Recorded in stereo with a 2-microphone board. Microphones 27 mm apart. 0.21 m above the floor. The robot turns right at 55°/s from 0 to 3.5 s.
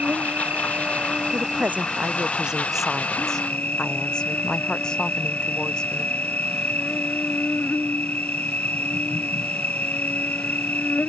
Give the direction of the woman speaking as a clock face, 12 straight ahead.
3 o'clock.